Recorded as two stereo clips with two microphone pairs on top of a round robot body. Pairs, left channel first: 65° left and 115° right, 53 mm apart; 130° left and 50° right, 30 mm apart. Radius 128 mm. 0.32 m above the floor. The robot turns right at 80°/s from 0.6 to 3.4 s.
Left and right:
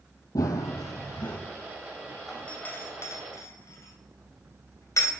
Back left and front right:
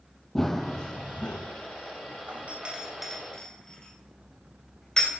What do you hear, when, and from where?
0.3 s running footsteps: 55° left, 0.6 m; by 1.4 s 110° left, 1.9 m
2.3 s a doorbell: 25° right, 4 m; by 5.1 s 65° left, 4 m